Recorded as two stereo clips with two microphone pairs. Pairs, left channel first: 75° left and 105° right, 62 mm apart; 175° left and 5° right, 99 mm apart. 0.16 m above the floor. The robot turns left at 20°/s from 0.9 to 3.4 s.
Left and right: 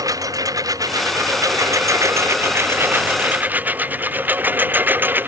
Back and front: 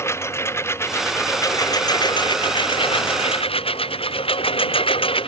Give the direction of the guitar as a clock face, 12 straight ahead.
No guitar in this recording.